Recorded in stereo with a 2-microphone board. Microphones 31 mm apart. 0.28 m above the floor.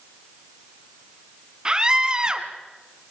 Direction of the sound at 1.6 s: 25° right (ahead or behind).